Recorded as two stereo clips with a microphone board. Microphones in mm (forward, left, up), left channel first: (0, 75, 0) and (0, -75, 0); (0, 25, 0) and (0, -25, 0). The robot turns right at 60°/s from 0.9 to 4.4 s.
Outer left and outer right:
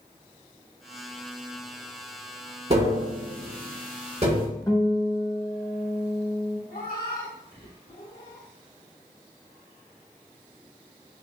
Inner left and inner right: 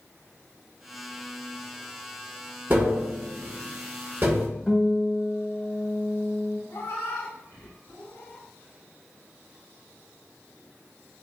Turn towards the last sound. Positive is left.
turn(degrees=80)